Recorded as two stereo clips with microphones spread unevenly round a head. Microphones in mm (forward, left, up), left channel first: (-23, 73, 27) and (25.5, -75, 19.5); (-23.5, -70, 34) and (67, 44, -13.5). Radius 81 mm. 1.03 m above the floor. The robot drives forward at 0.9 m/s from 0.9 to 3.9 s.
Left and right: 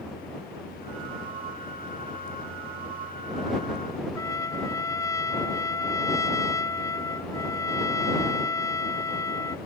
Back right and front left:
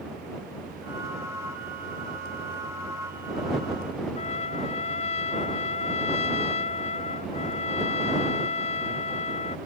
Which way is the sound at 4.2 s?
Straight behind.